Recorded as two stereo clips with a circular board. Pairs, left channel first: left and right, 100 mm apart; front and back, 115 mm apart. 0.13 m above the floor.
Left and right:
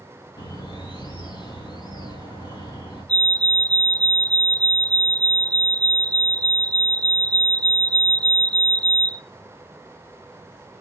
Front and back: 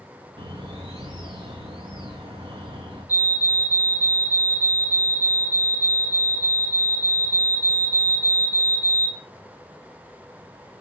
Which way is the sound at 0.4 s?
140° left.